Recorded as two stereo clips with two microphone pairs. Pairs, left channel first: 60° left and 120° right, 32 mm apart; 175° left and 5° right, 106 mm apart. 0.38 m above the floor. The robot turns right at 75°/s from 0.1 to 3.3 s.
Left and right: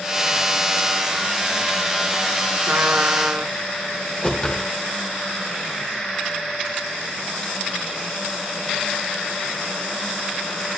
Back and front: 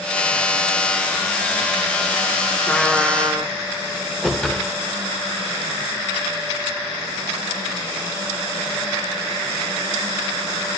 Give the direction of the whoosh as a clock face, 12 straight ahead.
9 o'clock.